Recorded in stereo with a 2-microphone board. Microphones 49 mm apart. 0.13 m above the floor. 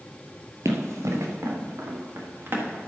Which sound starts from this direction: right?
Running footsteps, at 0.7 s.